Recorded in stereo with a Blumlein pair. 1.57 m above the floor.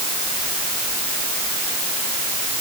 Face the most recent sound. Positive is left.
No sound to turn to.